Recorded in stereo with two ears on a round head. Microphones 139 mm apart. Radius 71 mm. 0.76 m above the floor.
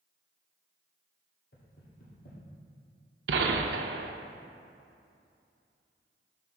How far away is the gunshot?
About 0.6 m.